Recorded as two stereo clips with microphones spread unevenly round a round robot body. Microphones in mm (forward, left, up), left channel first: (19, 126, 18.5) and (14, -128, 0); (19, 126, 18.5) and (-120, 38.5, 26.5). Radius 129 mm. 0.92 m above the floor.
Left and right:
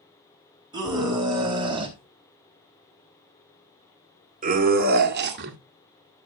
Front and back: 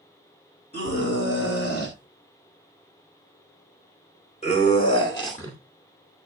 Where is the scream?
15° right, 5 m; by 5.6 s 45° right, 1.9 m.